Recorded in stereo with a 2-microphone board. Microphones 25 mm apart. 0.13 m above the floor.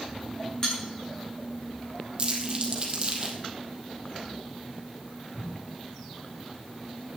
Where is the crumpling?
30° right (ahead or behind), 2.5 m.